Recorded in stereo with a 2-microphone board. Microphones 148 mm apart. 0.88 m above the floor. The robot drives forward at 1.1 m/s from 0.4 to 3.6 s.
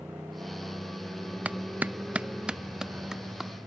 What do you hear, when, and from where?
0.0 s a motorcycle: 10° right (ahead or behind)
1.4 s a clap: 10° right (ahead or behind); by 3.5 s centre (ahead or behind)